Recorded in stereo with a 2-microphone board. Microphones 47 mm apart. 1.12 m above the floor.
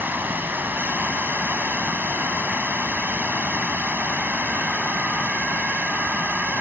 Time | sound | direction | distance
0.0 | running water | 45° right (ahead or behind) | ?